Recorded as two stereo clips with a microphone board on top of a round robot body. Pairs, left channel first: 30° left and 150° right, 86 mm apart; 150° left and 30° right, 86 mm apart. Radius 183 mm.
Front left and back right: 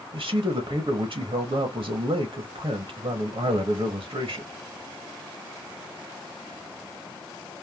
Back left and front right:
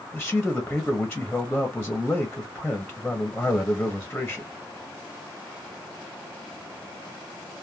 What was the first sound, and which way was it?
A man speaking, 125° right.